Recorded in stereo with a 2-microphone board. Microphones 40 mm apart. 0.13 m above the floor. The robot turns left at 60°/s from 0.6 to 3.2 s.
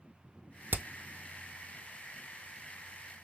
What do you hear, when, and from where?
0.7 s hammering: 55° right (ahead or behind), 0.5 m